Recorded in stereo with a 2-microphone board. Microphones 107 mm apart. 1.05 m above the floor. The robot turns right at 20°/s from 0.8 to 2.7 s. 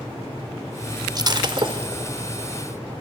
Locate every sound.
1.1 s breaking glass: 35° right (ahead or behind), 1.4 m; by 2.1 s 55° right (ahead or behind), 1.4 m